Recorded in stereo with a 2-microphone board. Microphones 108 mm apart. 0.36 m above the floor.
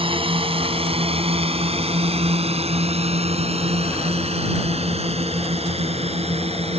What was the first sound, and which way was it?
A drone, 55° right (ahead or behind).